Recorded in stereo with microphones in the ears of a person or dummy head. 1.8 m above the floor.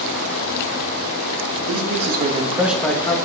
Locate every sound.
1.7 s a man speaking: 65° right (ahead or behind), 1.3 m; by 3.2 s 25° left (ahead or behind), 1.0 m